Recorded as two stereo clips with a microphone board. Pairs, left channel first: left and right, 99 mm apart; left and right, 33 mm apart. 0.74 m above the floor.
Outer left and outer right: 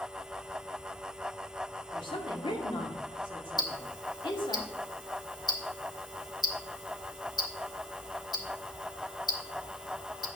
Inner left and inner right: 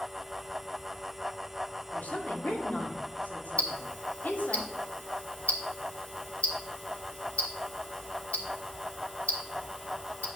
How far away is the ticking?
About 1.2 m.